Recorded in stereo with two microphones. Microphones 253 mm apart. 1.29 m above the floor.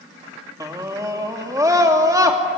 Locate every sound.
0.6 s a scream: 15° right (ahead or behind), 2.5 m